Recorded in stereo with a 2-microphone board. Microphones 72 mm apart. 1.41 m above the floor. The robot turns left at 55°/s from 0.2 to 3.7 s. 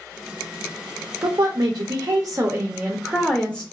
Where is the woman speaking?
70° right, 0.6 m; by 3.6 s 160° left, 0.6 m.